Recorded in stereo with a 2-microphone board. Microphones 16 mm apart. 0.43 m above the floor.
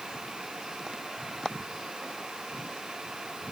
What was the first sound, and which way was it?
Only background noise.